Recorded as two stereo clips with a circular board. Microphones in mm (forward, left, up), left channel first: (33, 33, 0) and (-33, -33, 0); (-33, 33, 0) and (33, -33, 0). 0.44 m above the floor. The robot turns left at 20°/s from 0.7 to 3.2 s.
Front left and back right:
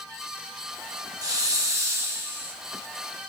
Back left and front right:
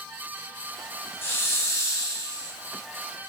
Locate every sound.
1.2 s a hiss: 165° right, 0.6 m; by 2.5 s 165° left, 0.6 m